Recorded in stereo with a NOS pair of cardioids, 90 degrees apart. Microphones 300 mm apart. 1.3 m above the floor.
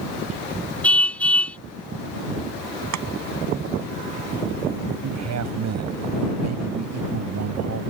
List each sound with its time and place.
0.8 s a car horn: 5° left
2.9 s chopping: 65° right
5.0 s a man speaking: 60° right